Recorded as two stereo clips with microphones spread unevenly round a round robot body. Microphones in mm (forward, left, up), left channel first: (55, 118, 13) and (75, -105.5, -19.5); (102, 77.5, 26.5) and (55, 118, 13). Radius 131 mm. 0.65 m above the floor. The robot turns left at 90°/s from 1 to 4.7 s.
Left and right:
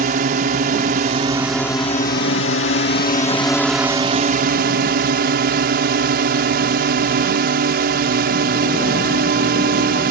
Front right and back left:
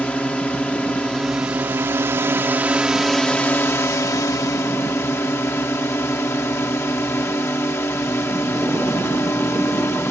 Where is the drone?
120° right; by 10.1 s 90° right.